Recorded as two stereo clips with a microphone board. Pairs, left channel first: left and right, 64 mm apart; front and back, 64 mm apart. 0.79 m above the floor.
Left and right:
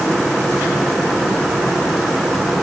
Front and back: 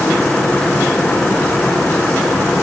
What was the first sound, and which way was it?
Only background noise.